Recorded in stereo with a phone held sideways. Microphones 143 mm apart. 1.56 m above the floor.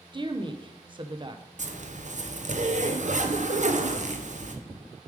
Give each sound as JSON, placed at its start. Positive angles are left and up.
{"t": 0.1, "sound": "a woman speaking", "side_deg": -35, "distance_m": 0.9}
{"t": 1.6, "sound": "a zipper", "side_deg": -55, "distance_m": 0.8}